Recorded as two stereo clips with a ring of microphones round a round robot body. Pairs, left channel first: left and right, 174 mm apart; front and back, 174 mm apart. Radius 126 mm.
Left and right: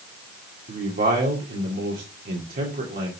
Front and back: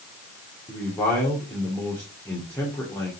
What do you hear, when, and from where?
0.7 s a man speaking: 80° right, 2 m